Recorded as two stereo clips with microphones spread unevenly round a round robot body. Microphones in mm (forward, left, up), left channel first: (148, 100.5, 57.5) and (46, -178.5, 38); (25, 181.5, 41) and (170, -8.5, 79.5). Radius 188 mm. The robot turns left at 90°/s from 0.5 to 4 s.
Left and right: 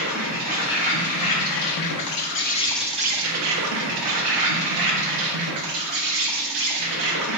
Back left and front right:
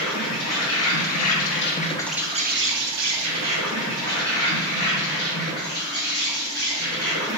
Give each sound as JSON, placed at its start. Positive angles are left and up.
{"t": 0.0, "sound": "an insect", "azimuth_deg": -175, "distance_m": 0.7}